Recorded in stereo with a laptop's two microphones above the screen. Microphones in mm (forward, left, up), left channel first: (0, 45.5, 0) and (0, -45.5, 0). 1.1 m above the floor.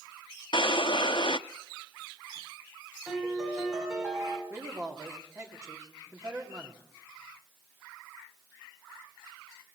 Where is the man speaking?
35° right (ahead or behind), 2.5 m.